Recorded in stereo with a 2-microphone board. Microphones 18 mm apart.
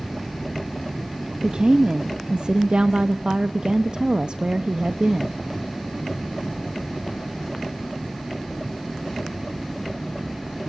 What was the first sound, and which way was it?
A woman speaking, 55° right (ahead or behind).